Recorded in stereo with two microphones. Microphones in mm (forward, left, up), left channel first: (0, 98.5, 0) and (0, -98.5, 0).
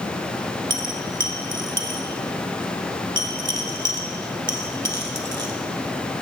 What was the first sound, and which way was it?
A dropped coin, 65° right (ahead or behind).